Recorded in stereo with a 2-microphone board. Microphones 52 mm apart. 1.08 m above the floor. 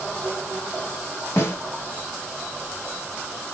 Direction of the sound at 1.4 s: 70° left (ahead or behind).